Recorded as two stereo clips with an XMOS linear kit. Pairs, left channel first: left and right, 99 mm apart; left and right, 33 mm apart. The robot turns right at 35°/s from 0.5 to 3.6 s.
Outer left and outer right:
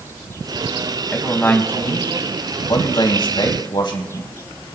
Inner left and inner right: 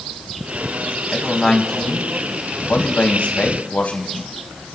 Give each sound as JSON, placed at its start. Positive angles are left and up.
{"t": 1.1, "sound": "a man speaking", "azimuth_deg": 15, "distance_m": 2.5}